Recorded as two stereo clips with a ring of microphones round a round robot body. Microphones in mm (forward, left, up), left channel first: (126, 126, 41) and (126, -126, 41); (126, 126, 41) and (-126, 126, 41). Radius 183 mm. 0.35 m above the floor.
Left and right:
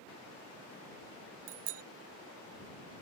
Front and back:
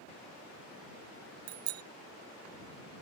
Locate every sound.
1.5 s a bicycle bell: 140° right